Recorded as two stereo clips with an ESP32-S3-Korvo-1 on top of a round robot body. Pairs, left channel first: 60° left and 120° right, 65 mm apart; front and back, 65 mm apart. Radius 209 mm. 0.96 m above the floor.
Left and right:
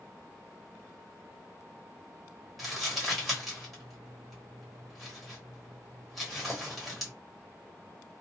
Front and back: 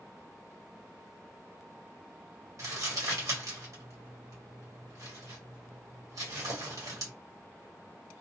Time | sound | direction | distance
2.6 | crumpling | 150° left | 1.8 m